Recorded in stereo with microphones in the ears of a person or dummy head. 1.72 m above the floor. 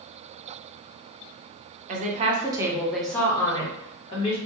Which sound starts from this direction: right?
A woman speaking, at 1.9 s.